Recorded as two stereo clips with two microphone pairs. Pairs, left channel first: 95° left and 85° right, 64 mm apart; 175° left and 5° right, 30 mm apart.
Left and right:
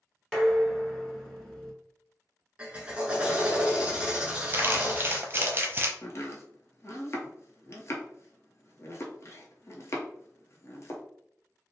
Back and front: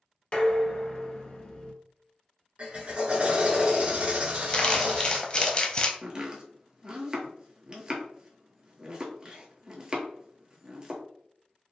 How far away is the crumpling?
About 0.6 m.